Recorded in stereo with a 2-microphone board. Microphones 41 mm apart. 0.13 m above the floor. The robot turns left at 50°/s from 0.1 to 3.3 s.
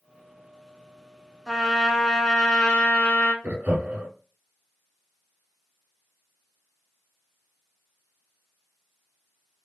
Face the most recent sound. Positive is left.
turn(degrees=-35)  # may be behind; listen again after turning